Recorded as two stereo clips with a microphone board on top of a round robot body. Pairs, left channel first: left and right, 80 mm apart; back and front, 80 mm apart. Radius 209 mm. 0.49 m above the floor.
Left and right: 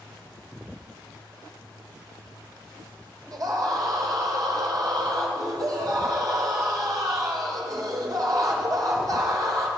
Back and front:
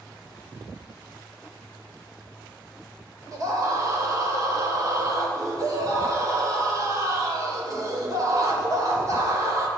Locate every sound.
3.3 s a scream: 50° right, 2.5 m